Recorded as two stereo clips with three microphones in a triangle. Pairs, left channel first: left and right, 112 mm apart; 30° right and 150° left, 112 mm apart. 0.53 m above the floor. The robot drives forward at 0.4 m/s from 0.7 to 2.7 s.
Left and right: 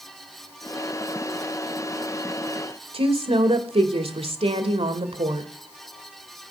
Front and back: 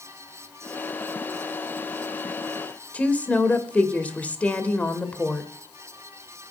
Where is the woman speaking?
105° right, 2 m.